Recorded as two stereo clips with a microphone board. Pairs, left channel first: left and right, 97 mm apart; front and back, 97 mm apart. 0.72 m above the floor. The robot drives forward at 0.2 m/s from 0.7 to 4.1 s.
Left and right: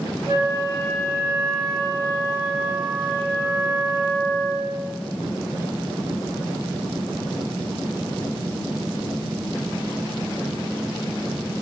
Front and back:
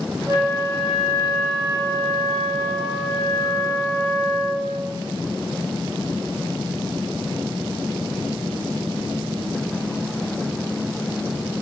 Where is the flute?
135° right, 1.9 m; by 4.9 s 145° right, 2.5 m.